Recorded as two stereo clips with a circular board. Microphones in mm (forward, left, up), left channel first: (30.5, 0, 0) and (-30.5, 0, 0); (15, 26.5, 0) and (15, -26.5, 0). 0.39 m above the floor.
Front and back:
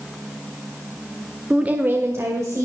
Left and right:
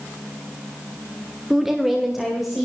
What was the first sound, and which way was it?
A woman speaking, 150° right.